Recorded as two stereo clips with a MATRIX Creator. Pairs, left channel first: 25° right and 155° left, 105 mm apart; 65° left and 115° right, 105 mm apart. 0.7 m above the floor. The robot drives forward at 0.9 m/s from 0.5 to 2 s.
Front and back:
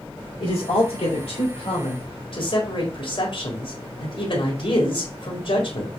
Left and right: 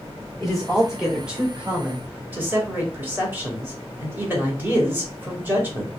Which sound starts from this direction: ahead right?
A man speaking, at 0.4 s.